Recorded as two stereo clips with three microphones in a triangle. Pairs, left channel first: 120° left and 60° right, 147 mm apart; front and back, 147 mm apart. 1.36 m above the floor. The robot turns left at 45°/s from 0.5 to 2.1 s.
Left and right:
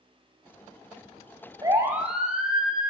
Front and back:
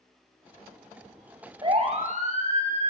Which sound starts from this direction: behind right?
A siren, at 1.6 s.